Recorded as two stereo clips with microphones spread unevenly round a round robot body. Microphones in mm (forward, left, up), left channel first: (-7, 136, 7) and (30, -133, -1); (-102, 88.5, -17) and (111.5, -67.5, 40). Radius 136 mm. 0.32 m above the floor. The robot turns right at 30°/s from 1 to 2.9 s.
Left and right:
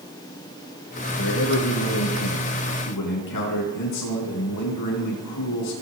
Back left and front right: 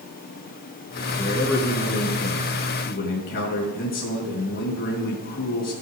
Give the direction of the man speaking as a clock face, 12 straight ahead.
11 o'clock.